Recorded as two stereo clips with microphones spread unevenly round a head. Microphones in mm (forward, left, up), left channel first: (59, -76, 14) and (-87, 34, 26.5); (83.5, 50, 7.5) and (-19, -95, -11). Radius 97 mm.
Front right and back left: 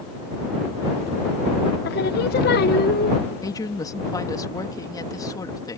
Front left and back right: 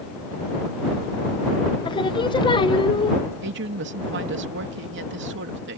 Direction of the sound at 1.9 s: Straight ahead.